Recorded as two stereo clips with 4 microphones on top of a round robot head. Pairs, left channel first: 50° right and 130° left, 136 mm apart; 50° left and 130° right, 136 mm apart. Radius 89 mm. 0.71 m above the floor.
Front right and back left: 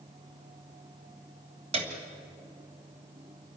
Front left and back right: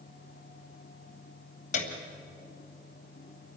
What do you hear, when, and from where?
1.7 s a piano: 85° left, 2.5 m